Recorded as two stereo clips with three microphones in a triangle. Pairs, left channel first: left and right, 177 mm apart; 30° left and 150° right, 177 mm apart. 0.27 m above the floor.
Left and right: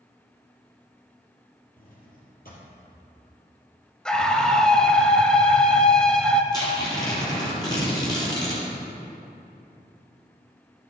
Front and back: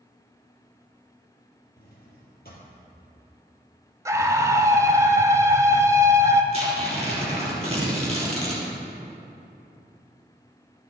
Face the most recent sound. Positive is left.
turn(degrees=155)